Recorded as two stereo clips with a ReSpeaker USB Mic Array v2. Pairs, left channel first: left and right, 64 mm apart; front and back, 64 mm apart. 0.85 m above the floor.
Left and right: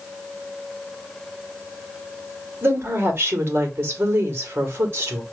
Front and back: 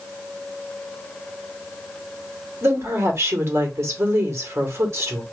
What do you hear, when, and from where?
2.6 s a woman speaking: 140° right, 1.8 m